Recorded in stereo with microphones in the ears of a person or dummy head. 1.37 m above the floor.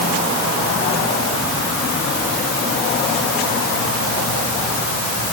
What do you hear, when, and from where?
Only background noise.